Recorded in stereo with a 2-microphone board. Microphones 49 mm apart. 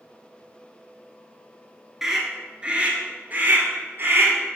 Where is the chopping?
I don't hear chopping.